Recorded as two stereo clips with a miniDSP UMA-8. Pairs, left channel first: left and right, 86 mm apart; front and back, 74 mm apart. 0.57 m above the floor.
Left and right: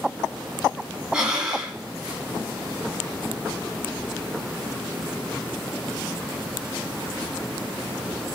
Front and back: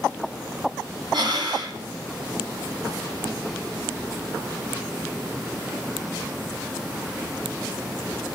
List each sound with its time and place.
1.1 s breathing: 170° right, 1.6 m